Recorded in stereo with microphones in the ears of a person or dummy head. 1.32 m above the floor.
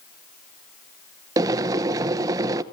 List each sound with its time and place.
1.4 s boiling: 20° right (ahead or behind), 0.9 m